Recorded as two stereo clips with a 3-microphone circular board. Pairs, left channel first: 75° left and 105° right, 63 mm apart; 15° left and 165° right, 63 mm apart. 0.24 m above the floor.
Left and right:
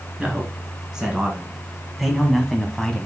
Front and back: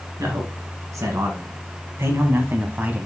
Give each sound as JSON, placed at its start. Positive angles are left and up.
{"t": 0.2, "sound": "a man speaking", "azimuth_deg": 180, "distance_m": 2.5}